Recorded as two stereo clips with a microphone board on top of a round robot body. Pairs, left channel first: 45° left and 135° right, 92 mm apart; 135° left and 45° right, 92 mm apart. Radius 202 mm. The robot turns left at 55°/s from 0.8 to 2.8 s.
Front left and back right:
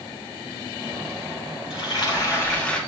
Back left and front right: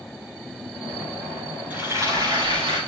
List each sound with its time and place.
1.7 s frying: 30° left, 3.5 m; by 2.8 s 30° right, 3.5 m